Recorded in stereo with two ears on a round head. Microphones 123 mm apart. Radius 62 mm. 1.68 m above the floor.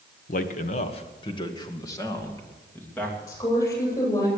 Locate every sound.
0.3 s a man speaking: 70° left (ahead or behind), 1.4 m; by 3.2 s 15° left (ahead or behind), 3 m
3.3 s a woman speaking: 25° left (ahead or behind), 9 m